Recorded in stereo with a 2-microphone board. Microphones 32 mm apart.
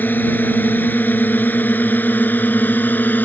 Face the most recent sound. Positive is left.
turn(degrees=70)  # may be behind; listen again after turning